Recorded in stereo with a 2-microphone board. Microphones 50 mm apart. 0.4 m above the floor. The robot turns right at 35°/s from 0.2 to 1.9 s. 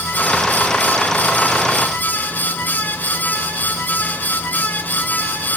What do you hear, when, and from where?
Only background noise.